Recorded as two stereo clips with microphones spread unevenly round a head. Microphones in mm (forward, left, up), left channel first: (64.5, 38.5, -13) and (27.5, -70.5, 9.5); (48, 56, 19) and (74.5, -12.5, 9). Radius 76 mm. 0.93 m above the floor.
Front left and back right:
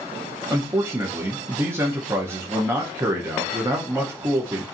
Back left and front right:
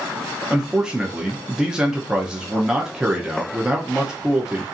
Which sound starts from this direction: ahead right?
A man speaking, at 0.5 s.